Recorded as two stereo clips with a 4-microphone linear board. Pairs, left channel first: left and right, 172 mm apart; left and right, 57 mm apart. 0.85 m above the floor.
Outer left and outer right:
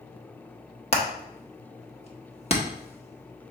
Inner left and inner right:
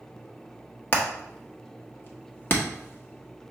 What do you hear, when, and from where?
0.9 s hammering: 35° left (ahead or behind), 1.0 m